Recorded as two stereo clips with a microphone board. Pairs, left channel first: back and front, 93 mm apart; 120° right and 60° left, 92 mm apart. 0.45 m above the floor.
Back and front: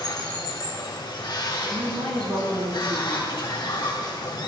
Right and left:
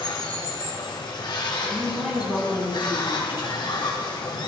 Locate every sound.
0.0 s running water: 150° right, 1.4 m
1.6 s a woman speaking: 20° right, 4 m